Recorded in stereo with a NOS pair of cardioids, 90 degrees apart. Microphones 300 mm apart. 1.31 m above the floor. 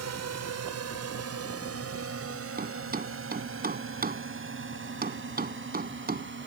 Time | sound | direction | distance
0.0 | a drone | 60° right | ?
2.6 | a thud | 30° right | ?